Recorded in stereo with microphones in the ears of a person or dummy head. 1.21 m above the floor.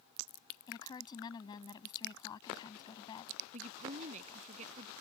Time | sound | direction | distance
0.7 | a woman speaking | 30° left (ahead or behind) | ?
3.5 | a woman speaking | 30° right (ahead or behind) | ?